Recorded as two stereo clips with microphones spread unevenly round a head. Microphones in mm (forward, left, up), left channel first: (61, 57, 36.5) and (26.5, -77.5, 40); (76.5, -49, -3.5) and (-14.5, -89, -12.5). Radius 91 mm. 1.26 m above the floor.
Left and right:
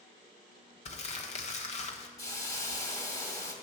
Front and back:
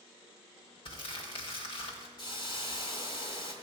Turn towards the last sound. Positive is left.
turn(degrees=15)